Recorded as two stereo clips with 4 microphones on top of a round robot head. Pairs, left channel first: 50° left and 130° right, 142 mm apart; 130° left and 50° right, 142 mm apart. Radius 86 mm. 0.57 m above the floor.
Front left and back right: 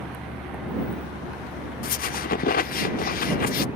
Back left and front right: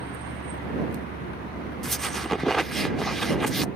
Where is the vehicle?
135° left; by 3.8 s 150° left.